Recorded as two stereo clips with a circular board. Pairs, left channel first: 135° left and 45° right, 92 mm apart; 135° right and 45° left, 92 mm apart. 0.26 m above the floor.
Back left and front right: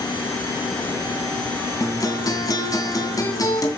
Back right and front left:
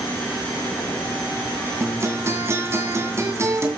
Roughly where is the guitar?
Left.